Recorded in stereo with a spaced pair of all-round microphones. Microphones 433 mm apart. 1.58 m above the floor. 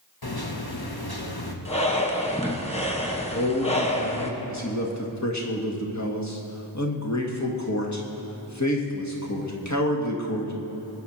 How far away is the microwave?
About 1.4 m.